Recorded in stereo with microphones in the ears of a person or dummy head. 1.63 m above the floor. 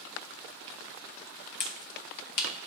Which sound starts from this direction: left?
A finger snap, at 1.6 s.